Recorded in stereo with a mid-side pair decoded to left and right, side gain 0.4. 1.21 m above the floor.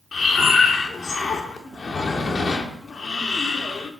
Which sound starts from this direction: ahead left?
Breathing, at 0.1 s.